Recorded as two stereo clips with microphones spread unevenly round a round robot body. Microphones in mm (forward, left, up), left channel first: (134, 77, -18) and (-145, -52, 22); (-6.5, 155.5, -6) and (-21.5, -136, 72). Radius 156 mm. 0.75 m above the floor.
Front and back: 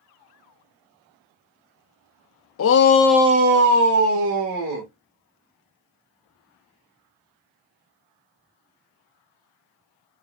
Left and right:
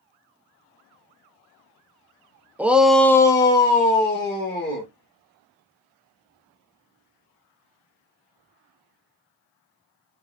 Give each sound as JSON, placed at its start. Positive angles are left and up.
{"t": 2.6, "sound": "a shout", "azimuth_deg": 0, "distance_m": 0.7}